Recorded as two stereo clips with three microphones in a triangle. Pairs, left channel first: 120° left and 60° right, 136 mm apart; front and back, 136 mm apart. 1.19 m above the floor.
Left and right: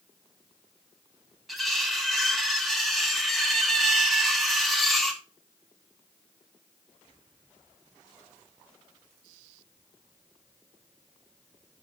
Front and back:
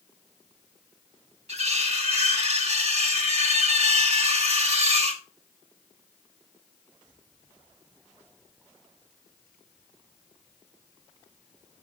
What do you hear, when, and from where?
1.5 s cutlery clinking: 150° right, 1.0 m